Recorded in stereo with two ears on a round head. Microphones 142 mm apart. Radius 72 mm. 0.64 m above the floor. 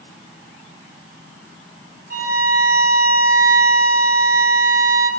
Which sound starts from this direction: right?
A violin, at 2.1 s.